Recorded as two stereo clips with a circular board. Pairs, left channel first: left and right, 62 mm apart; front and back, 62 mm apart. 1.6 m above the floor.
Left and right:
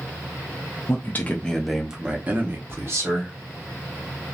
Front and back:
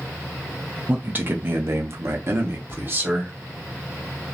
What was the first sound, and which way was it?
A man speaking, 120° left.